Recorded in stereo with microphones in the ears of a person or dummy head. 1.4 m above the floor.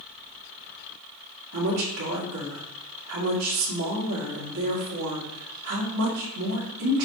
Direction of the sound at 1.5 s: 75° right (ahead or behind).